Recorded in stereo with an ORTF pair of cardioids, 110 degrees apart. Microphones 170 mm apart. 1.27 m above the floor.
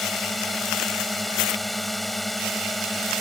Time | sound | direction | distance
0.0 | a drone | straight ahead | ?